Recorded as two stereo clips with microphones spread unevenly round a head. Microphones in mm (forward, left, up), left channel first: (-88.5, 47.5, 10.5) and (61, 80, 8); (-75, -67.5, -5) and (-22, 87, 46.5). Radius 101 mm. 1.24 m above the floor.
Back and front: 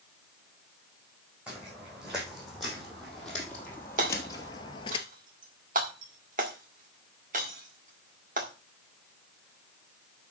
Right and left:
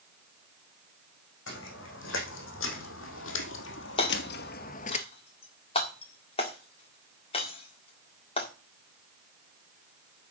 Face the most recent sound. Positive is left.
turn(degrees=-40)